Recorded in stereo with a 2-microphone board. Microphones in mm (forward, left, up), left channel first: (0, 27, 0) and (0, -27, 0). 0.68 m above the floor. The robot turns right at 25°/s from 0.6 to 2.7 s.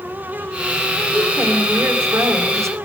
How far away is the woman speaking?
About 3.5 m.